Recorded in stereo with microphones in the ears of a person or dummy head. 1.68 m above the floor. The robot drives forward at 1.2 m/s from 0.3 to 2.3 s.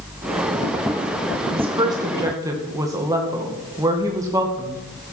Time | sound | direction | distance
1.5 | a woman speaking | 30° right (ahead or behind) | 1.0 m